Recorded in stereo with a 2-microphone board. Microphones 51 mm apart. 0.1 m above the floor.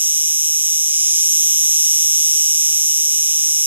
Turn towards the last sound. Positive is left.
turn(degrees=-40)  # may be behind; listen again after turning